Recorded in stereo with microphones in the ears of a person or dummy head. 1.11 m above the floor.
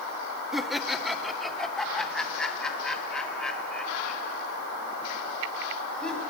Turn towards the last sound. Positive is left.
turn(degrees=10)  # may be behind; listen again after turning